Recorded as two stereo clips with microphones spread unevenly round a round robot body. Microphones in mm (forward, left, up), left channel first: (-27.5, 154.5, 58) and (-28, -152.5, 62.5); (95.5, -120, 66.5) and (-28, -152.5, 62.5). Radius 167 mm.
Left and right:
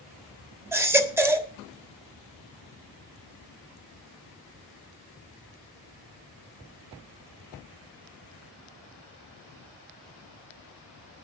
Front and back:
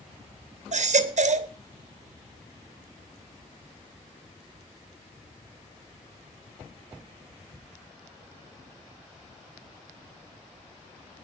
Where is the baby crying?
170° right, 1.4 m.